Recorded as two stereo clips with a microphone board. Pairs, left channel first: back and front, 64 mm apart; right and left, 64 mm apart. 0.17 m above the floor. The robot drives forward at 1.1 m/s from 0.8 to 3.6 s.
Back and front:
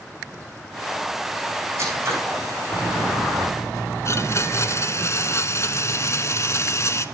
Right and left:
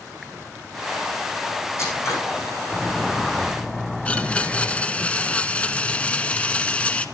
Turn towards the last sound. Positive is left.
turn(degrees=-155)